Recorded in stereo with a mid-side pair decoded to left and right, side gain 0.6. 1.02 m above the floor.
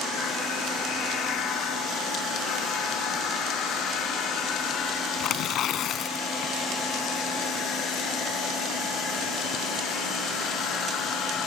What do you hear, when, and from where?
5.2 s tearing paper: 55° left